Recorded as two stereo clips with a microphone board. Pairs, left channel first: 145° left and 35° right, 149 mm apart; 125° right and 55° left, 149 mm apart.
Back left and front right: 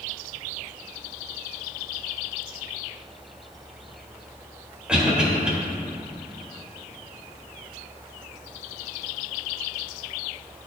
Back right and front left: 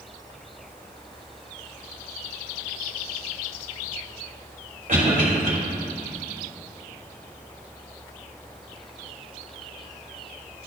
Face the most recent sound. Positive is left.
turn(degrees=50)